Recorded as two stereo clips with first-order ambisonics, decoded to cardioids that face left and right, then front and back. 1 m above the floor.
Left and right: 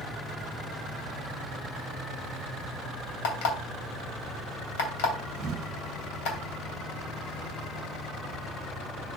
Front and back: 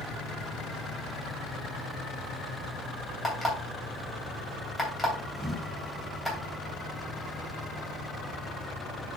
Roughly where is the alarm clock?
Left.